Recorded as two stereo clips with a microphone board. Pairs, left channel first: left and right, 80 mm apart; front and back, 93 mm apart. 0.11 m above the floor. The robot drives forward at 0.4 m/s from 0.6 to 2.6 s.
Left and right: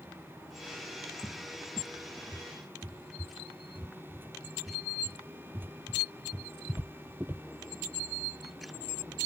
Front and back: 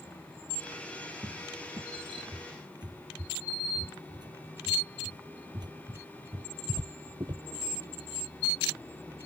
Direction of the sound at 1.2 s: 140° right.